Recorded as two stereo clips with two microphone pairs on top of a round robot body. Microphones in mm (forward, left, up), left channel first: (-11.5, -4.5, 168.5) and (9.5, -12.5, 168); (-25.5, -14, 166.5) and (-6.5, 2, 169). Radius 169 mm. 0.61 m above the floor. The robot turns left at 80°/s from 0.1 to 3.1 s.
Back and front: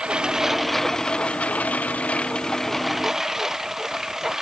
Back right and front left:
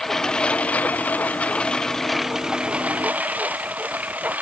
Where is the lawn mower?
65° right; by 4.4 s 50° left.